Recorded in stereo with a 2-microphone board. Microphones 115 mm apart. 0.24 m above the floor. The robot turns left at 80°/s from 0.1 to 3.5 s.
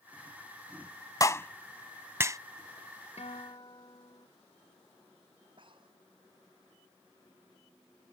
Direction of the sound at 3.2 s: 70° left (ahead or behind).